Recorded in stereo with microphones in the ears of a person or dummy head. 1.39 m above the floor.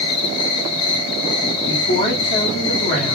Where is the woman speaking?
40° left (ahead or behind), 1.7 m.